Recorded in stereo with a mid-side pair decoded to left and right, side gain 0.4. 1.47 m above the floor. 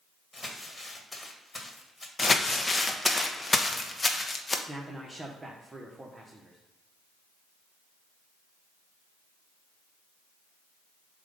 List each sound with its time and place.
0.3 s crumpling: 20° left, 1.6 m
2.2 s crumpling: 25° left, 0.9 m
4.7 s a man speaking: 20° right, 1.1 m